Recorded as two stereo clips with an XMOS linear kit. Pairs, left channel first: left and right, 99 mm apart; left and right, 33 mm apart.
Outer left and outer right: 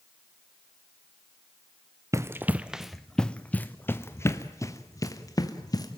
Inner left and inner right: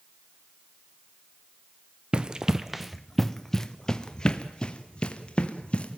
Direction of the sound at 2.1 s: 30° right (ahead or behind).